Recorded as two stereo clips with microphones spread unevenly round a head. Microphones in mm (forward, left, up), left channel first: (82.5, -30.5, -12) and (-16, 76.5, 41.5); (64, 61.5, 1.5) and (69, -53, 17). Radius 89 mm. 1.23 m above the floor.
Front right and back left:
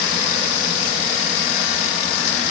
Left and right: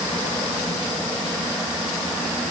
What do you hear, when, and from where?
Only background noise.